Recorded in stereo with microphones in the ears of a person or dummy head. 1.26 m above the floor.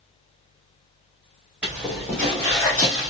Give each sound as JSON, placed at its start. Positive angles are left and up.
{"t": 1.6, "sound": "footsteps", "side_deg": -5, "distance_m": 1.8}